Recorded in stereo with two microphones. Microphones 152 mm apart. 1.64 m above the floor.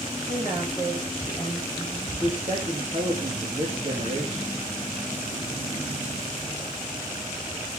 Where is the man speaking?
40° right (ahead or behind), 3.5 m.